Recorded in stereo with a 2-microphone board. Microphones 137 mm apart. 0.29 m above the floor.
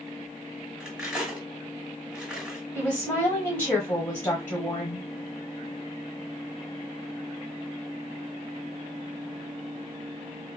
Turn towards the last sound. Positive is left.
turn(degrees=15)  # may be behind; listen again after turning